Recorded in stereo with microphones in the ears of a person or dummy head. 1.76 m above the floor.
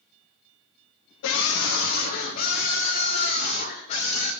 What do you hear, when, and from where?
1.2 s a scream: 60° left (ahead or behind), 0.9 m; by 4.3 s 30° left (ahead or behind), 3 m